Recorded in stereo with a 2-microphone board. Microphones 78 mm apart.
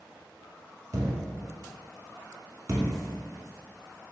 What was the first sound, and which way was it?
A thud, 40° right (ahead or behind).